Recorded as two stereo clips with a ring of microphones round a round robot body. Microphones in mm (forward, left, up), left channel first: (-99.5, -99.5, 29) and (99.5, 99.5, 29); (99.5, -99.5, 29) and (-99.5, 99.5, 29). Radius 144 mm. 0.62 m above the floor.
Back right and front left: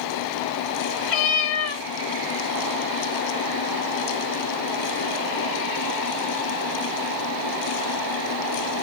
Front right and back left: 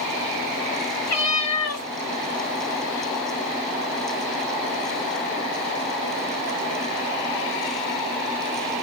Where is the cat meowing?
85° right, 1.8 m.